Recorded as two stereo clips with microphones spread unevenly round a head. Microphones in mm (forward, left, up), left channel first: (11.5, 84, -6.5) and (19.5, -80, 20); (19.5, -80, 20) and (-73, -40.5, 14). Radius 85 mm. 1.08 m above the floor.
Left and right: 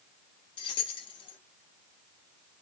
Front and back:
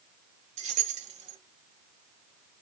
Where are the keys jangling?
160° left, 0.9 m.